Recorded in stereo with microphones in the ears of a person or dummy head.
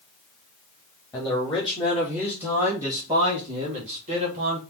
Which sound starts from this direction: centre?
A man speaking, at 1.1 s.